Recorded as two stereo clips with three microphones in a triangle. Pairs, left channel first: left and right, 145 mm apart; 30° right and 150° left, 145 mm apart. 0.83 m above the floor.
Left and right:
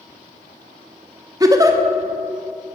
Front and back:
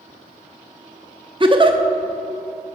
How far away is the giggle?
About 0.7 m.